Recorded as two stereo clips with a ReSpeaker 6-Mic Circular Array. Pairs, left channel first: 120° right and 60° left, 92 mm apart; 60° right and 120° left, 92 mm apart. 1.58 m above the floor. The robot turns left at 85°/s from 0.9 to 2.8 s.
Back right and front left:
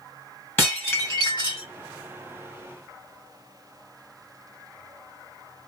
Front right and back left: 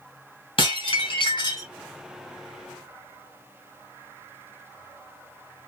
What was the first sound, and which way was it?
Dishes clattering, 55° right.